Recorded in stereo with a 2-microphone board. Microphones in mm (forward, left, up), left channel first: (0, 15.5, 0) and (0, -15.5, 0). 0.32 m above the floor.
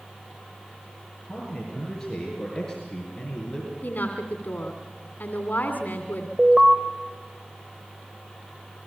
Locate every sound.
1.3 s a man speaking: 10° left (ahead or behind), 7.5 m; by 3.7 s 20° left (ahead or behind), 6 m
3.8 s a woman speaking: 65° left (ahead or behind), 2.5 m
6.4 s an alarm: 20° right (ahead or behind), 2.0 m